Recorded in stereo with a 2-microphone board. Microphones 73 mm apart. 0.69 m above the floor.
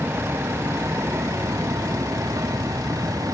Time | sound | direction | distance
0.0 | a vehicle | 35° right (ahead or behind) | ?